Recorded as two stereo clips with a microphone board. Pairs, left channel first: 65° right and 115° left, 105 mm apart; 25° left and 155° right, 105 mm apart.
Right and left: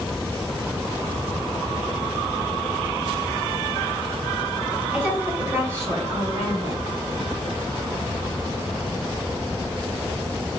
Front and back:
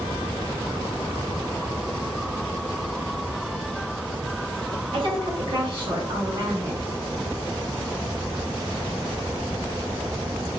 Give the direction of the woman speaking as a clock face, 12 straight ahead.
6 o'clock.